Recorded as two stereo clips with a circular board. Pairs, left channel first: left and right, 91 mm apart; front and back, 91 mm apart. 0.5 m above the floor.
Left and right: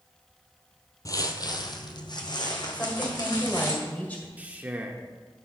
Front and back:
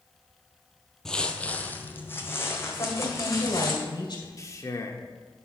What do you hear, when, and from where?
1.1 s footsteps: 80° left, 0.6 m; by 3.7 s 55° left, 1.8 m
2.7 s a woman speaking: 20° left, 2 m
4.4 s a man speaking: 25° right, 0.8 m